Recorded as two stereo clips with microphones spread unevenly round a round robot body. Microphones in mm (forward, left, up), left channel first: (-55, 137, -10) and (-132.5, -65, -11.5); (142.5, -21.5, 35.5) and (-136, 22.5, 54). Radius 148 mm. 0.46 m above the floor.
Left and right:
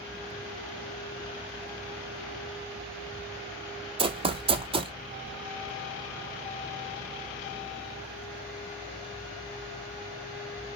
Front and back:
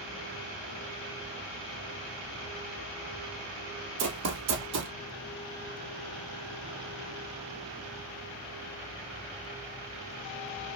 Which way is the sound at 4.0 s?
170° right.